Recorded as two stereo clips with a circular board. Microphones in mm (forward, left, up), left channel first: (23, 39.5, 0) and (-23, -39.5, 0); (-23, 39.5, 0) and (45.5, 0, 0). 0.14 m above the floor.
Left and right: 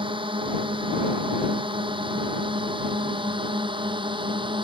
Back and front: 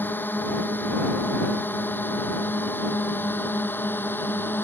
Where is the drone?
145° right.